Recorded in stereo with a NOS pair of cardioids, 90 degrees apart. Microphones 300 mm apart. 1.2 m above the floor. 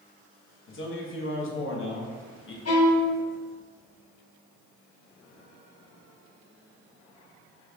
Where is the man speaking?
40° left, 1.0 m.